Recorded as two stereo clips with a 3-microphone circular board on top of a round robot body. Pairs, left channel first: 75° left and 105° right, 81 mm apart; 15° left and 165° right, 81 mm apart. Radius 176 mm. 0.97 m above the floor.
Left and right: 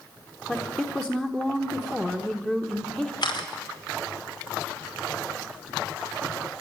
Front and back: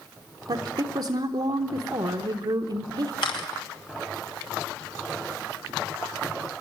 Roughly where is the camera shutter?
Ahead left.